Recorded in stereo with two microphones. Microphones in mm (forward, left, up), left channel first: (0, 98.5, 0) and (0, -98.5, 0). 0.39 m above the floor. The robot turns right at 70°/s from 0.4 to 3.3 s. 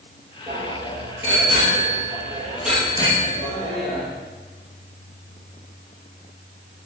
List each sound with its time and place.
0.5 s a bicycle bell: 155° right, 8 m; by 4.1 s 40° left, 8 m